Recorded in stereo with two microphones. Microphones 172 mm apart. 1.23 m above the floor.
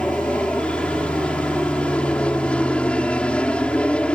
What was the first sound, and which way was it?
An aircraft, 5° left (ahead or behind).